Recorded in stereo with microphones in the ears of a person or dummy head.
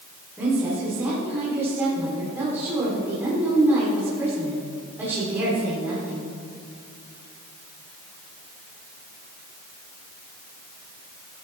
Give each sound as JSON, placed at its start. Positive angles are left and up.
{"t": 0.4, "sound": "a woman speaking", "side_deg": -15, "distance_m": 4.0}